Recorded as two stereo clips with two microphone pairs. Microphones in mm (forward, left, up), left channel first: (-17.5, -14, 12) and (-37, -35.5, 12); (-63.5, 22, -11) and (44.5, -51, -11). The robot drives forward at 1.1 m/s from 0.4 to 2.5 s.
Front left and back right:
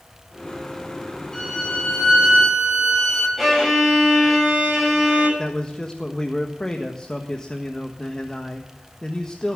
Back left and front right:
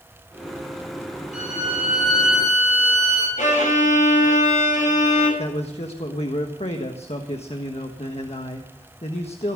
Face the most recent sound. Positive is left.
turn(degrees=115)